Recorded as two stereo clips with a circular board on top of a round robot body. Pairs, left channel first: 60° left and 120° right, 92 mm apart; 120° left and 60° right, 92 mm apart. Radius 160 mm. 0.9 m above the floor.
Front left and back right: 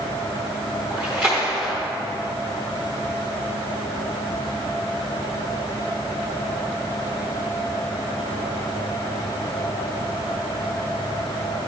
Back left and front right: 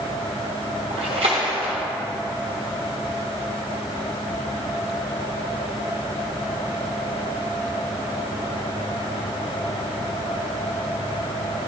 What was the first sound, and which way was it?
A splash, 40° right.